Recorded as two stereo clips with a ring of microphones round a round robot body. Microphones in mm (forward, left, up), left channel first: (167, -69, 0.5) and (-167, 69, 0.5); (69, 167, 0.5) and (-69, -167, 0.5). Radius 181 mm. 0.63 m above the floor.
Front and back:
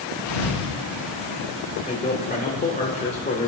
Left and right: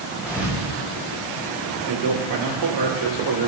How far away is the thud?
About 5 m.